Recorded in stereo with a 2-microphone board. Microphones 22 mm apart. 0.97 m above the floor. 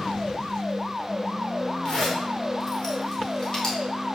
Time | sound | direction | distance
1.9 | a zipper | 30° left (ahead or behind) | 4 m